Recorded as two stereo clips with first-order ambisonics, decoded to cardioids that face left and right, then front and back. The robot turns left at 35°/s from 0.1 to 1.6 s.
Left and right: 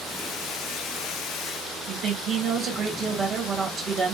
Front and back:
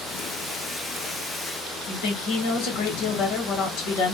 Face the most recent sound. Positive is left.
turn(degrees=-25)